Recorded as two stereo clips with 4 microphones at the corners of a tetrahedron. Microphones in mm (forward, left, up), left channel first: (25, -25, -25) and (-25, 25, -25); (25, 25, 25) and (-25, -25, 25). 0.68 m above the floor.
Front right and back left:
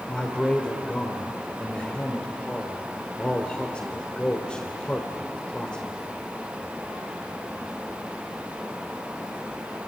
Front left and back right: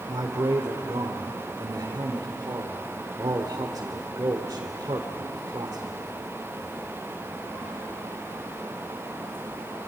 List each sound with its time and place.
0.1 s a man speaking: 120° right, 2 m